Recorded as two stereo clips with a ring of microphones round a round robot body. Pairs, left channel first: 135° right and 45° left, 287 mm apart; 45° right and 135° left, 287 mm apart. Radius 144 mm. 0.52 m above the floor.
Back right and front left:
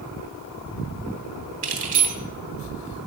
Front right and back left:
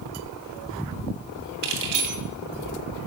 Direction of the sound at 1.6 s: 110° left.